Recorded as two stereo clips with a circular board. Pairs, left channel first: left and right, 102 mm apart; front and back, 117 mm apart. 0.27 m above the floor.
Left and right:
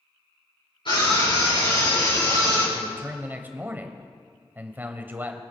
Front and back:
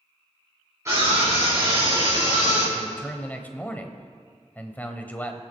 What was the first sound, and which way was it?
A scream, 115° left.